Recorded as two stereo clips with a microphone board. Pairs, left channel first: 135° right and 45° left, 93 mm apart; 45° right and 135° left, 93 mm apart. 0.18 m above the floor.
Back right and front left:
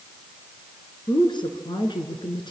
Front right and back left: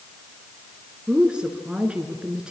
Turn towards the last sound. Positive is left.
turn(degrees=-145)